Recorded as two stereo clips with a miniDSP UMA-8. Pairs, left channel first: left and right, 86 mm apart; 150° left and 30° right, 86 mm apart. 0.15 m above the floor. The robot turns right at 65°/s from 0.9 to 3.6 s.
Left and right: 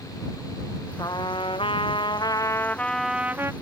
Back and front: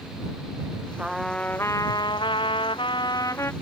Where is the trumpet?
45° left; by 3.5 s 150° right.